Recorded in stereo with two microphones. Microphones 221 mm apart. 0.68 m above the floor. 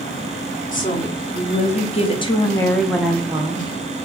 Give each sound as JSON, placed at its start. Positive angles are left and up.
{"t": 0.7, "sound": "a woman speaking", "side_deg": 40, "distance_m": 1.2}